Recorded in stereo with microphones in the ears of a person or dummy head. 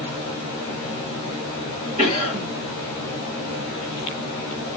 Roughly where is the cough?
Right.